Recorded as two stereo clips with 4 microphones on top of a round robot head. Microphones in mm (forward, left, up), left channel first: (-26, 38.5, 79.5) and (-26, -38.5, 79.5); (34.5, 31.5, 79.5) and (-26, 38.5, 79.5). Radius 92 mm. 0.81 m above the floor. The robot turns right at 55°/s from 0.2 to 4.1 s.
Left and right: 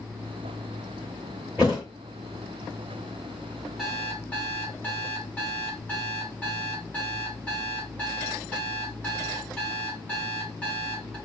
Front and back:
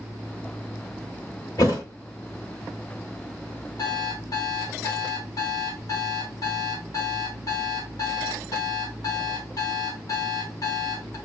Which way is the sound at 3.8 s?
Straight ahead.